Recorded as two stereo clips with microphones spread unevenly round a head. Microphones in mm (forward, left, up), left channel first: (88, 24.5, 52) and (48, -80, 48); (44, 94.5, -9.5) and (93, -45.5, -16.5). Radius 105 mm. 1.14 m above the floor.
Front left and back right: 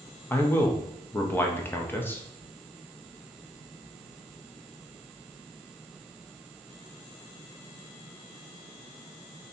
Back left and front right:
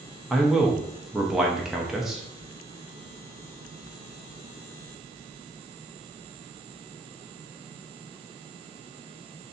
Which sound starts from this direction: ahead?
A man speaking, at 0.3 s.